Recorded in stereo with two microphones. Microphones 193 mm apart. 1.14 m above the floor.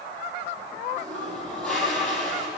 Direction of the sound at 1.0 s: 5° left (ahead or behind).